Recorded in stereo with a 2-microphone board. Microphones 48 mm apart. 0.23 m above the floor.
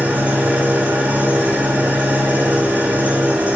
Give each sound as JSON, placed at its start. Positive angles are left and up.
{"t": 0.0, "sound": "an engine running", "side_deg": -30, "distance_m": 5.5}